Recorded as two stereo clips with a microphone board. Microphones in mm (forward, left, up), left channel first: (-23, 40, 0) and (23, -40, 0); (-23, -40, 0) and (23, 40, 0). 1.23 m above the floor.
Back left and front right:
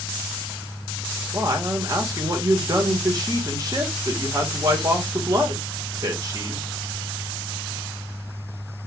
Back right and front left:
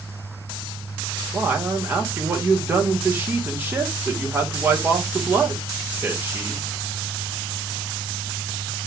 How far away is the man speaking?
About 1.3 m.